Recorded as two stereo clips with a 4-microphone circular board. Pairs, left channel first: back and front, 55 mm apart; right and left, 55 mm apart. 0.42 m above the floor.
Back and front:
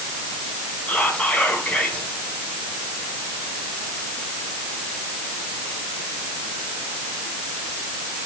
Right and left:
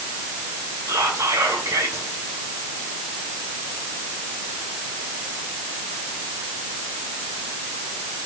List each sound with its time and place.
0.9 s whispering: 105° left, 4.5 m